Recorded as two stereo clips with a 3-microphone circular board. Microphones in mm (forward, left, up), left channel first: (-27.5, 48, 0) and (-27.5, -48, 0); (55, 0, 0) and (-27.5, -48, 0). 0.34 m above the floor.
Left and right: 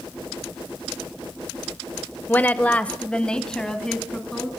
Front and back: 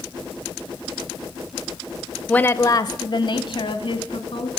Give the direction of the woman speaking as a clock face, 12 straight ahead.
9 o'clock.